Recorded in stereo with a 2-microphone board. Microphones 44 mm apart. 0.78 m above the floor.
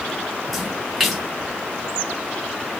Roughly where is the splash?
Centre.